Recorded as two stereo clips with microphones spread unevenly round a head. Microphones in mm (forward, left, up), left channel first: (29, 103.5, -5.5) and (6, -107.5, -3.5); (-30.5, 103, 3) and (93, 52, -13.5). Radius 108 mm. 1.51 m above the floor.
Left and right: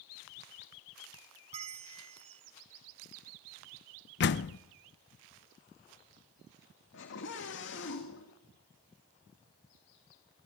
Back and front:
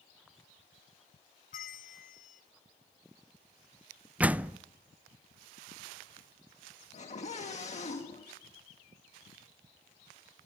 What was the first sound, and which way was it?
A bell, 160° right.